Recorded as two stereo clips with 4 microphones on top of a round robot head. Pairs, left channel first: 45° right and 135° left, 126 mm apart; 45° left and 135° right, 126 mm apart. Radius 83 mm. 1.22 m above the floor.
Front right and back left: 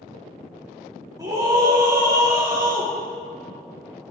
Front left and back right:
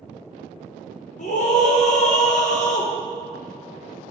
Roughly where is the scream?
Left.